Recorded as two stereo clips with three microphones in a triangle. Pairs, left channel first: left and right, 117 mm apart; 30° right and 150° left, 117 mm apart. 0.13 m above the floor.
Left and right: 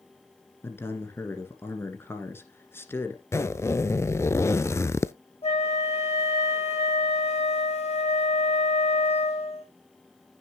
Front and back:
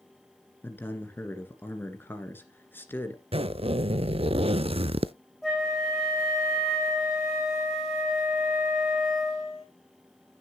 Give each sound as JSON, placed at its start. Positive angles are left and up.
{"t": 0.6, "sound": "a man speaking", "azimuth_deg": 30, "distance_m": 1.8}
{"t": 3.3, "sound": "a zipper", "azimuth_deg": 150, "distance_m": 0.5}
{"t": 5.4, "sound": "a flute", "azimuth_deg": 60, "distance_m": 3.5}